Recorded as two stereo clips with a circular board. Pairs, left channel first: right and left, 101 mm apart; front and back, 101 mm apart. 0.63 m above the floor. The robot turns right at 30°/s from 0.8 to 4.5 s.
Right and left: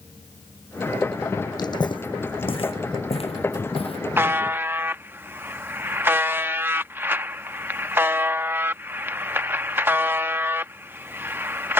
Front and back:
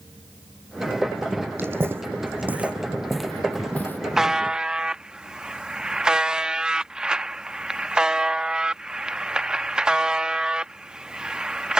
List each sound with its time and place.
1.6 s footsteps: 120° right; by 4.0 s 70° right
4.2 s a buzzer: 100° left; by 11.8 s 110° left